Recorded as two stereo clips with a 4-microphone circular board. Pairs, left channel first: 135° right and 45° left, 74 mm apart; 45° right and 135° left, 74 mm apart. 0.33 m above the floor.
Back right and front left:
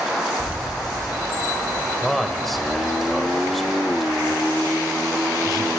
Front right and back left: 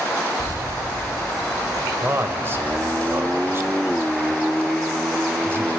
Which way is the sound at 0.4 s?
115° left.